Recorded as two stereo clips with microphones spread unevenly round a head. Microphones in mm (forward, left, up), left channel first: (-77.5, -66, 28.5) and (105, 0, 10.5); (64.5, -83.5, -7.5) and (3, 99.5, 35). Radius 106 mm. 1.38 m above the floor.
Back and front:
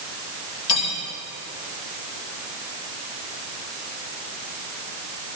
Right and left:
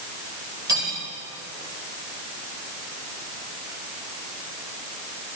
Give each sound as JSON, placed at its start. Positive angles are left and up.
{"t": 0.7, "sound": "cutlery clinking", "azimuth_deg": 180, "distance_m": 3.5}